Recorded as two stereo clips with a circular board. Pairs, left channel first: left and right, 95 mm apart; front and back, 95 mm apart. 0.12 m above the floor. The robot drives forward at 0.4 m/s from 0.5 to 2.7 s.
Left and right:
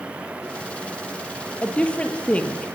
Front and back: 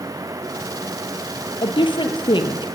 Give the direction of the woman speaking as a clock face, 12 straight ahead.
12 o'clock.